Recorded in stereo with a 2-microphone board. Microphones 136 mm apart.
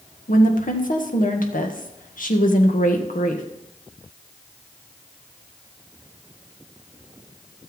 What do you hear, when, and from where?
0.3 s a woman speaking: 80° left, 1.8 m